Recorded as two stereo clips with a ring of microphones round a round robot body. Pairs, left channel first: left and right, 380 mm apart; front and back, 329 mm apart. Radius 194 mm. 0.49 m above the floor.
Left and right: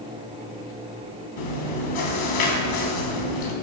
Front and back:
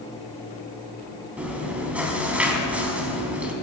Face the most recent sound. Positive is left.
turn(degrees=95)